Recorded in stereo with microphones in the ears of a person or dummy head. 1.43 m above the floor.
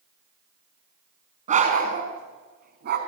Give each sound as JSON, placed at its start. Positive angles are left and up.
{"t": 1.5, "sound": "a dog barking", "side_deg": -45, "distance_m": 4.5}